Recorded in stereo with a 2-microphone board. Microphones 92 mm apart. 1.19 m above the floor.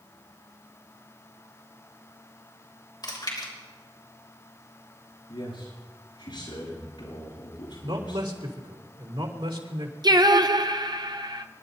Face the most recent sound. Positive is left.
turn(degrees=-50)  # may be behind; listen again after turning